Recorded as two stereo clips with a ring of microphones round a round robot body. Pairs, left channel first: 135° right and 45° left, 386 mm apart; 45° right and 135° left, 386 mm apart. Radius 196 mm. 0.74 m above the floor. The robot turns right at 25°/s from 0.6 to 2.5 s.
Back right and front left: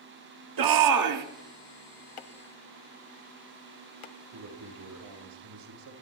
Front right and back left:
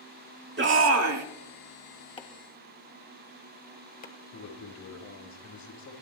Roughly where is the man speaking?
Ahead.